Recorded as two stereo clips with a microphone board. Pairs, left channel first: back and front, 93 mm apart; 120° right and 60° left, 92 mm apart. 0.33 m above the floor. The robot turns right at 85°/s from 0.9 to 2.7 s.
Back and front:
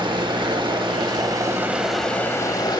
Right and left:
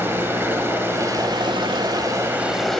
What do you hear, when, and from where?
0.0 s running water: straight ahead, 0.8 m; by 2.8 s 155° left, 0.8 m